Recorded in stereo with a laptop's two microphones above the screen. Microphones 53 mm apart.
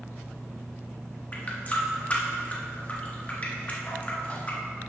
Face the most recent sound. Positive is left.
turn(degrees=30)  # may be behind; listen again after turning